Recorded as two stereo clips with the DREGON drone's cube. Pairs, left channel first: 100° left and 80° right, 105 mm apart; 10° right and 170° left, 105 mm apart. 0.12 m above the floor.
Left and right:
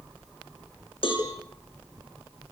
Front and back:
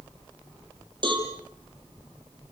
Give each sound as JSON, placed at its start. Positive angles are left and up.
{"t": 1.0, "sound": "a cowbell", "azimuth_deg": 130, "distance_m": 5.5}